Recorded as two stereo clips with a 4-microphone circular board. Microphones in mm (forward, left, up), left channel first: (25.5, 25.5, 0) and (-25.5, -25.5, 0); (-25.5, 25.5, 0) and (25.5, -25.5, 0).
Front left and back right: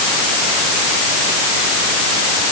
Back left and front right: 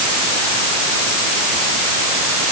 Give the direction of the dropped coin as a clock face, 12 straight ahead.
I don't hear a dropped coin.